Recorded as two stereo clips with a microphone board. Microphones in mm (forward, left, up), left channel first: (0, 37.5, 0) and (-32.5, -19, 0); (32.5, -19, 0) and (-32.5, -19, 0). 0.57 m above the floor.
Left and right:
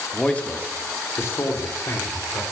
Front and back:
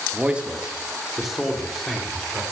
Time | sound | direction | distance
0.1 | a man speaking | 130° left | 1.1 m